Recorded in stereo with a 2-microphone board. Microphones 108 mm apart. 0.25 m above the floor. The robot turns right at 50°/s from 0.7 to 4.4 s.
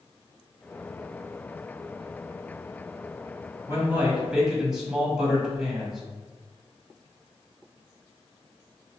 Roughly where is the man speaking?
Ahead right.